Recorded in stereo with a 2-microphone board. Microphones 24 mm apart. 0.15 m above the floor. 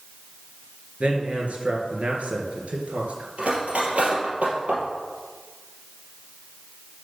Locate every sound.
1.0 s a man speaking: 60° right (ahead or behind), 2.5 m
3.4 s cutlery clinking: 60° right (ahead or behind), 2.5 m